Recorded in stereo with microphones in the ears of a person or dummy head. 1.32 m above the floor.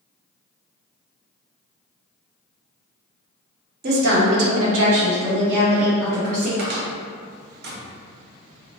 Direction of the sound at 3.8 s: 50° right (ahead or behind).